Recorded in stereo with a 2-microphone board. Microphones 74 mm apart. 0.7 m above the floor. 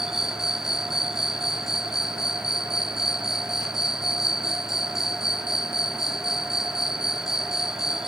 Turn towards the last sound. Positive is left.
turn(degrees=-5)  # may be behind; listen again after turning